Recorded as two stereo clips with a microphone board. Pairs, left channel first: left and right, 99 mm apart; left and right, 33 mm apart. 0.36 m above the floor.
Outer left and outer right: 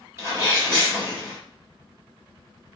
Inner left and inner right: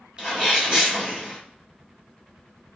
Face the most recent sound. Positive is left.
turn(degrees=-30)  # may be behind; listen again after turning